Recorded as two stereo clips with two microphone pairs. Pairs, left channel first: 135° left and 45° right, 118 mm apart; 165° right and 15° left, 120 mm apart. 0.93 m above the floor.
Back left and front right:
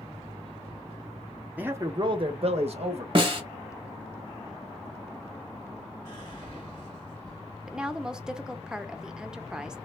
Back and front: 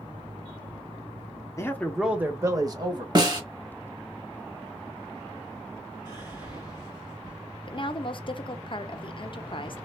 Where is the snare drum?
25° right, 1.0 m.